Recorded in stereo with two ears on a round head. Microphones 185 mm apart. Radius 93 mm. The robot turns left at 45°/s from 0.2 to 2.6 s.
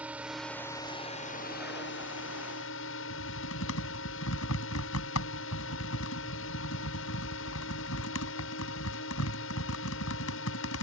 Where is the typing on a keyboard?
90° left.